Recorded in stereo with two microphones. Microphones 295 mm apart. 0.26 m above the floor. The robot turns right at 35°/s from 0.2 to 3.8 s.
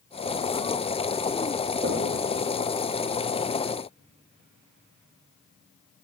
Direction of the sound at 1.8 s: 45° right (ahead or behind).